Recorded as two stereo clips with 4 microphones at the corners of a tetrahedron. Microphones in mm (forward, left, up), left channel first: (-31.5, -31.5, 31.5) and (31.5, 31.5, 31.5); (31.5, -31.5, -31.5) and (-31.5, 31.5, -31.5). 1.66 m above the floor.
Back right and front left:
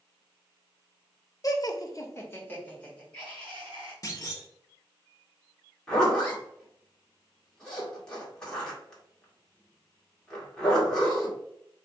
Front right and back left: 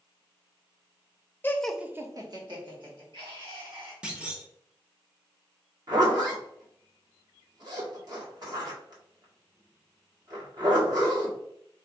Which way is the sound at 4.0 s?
150° right.